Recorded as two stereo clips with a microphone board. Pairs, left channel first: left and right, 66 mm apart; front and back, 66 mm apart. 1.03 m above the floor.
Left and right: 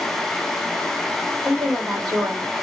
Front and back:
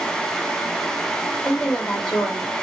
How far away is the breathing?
No breathing in this recording.